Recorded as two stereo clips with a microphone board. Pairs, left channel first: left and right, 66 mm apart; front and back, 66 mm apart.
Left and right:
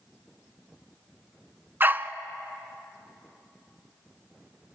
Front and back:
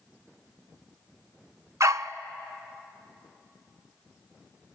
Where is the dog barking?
145° right, 0.6 m.